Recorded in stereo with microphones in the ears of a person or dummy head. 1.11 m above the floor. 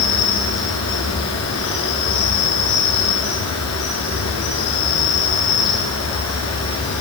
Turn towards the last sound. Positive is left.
turn(degrees=75)  # may be behind; listen again after turning